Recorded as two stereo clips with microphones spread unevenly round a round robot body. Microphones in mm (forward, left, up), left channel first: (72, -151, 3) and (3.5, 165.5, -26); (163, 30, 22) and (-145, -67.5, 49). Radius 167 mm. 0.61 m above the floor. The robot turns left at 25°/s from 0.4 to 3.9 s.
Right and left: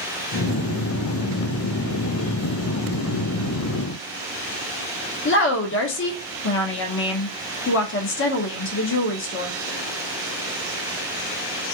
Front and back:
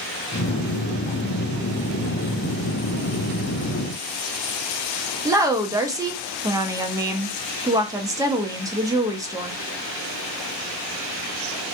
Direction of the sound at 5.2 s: 85° right.